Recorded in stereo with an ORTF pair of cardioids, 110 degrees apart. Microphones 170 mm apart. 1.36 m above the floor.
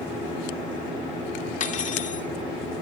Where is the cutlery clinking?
45° left, 2.5 m.